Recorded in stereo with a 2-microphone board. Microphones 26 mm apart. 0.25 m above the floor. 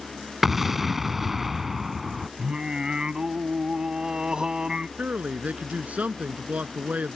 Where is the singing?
30° right (ahead or behind).